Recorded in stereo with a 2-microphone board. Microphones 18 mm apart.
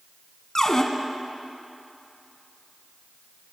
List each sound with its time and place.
0.6 s a cupboard door: 30° left (ahead or behind), 1.1 m